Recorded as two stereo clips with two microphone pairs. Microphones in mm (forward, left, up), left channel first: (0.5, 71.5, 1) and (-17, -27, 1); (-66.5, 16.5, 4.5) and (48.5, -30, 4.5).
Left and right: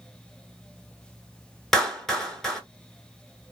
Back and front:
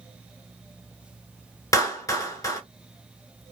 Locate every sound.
1.7 s a clap: 160° left, 1.0 m